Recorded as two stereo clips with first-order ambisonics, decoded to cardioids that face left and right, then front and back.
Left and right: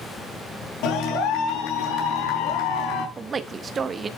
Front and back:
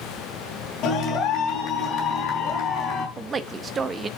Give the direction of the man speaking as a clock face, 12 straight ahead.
4 o'clock.